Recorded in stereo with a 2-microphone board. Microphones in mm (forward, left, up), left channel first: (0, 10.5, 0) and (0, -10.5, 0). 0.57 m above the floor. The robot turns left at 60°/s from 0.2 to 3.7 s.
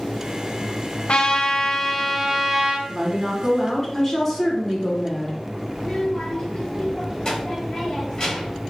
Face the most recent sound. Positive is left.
turn(degrees=35)  # may be behind; listen again after turning